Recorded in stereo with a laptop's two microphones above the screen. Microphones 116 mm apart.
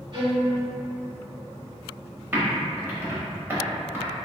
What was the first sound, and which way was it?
A violin, 40° right (ahead or behind).